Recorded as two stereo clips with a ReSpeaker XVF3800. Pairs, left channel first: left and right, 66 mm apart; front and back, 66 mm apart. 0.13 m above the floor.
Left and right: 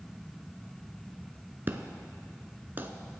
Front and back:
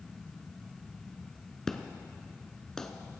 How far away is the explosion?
About 0.8 m.